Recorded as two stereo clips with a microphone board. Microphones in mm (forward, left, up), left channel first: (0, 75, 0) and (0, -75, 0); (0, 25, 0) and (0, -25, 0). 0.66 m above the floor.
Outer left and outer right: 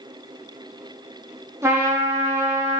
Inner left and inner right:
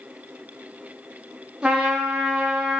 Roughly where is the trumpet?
Centre.